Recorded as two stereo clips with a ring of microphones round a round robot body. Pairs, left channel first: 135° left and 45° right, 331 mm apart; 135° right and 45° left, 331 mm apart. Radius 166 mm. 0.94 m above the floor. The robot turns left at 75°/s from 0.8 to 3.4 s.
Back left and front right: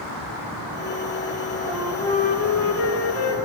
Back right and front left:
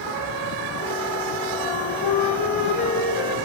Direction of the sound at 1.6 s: 115° right.